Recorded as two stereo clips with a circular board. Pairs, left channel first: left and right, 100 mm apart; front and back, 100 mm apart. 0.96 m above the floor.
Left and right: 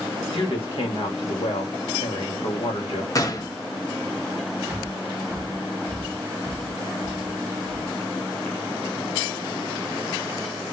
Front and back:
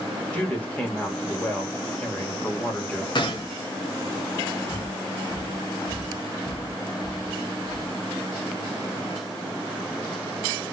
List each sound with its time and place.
0.3 s a woman speaking: 75° left, 1.7 m
3.1 s a gunshot: 35° left, 1.0 m
4.7 s breathing: 40° right, 1.4 m